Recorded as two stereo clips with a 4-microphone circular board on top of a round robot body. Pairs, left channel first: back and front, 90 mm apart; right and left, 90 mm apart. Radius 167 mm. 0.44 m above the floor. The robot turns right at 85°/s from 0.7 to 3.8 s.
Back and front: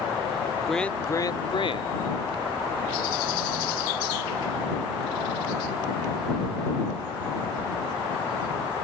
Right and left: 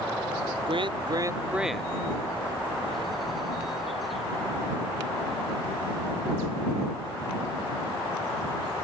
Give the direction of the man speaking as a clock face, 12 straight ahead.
9 o'clock.